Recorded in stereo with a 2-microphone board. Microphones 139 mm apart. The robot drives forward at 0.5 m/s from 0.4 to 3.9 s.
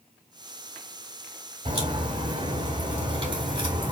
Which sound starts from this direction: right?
A crack, at 1.6 s.